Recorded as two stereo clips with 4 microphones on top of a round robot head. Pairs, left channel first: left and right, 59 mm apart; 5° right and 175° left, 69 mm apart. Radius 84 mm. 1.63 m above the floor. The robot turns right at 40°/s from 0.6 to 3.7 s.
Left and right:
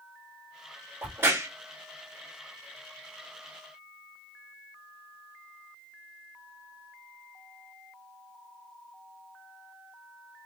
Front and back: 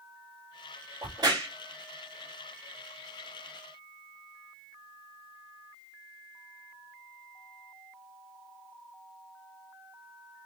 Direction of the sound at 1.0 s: 150° right.